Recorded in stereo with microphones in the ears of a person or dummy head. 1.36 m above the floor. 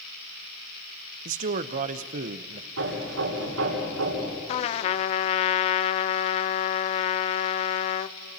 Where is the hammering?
90° right, 9 m.